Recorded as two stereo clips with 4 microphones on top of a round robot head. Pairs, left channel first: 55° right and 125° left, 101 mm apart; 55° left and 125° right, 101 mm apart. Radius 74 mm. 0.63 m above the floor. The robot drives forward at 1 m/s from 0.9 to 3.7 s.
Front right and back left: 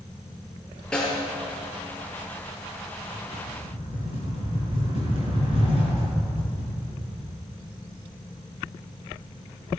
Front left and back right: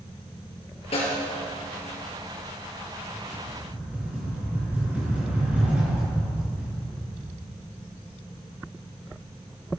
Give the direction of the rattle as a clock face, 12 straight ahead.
7 o'clock.